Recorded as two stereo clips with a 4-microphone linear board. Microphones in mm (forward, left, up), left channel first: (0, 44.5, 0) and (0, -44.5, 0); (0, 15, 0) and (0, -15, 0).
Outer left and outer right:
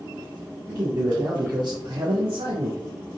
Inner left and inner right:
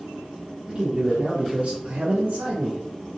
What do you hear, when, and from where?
0.7 s a man speaking: 40° right (ahead or behind), 1.1 m; by 2.8 s 65° right (ahead or behind), 0.6 m